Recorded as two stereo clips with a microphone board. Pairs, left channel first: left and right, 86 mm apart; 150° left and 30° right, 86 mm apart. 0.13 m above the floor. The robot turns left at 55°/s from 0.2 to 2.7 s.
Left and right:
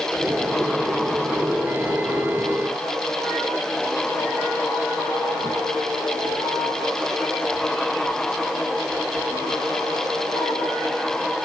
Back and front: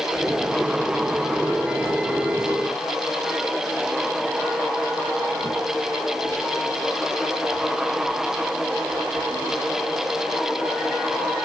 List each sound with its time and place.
Only background noise.